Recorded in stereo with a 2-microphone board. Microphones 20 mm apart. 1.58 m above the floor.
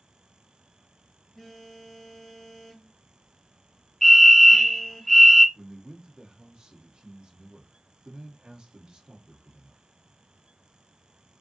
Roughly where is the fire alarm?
Centre.